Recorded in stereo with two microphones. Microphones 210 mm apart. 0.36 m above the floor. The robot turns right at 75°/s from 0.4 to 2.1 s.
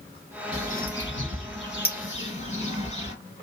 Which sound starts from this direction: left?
A bird, at 0.5 s.